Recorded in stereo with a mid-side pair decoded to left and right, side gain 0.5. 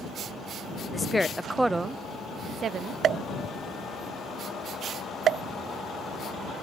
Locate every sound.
0.9 s a woman speaking: 30° left; by 3.0 s 55° right
3.0 s a pop: 55° right